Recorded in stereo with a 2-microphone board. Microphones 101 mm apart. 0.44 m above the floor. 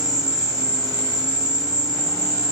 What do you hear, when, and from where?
0.0 s an insect: 40° right (ahead or behind), 0.8 m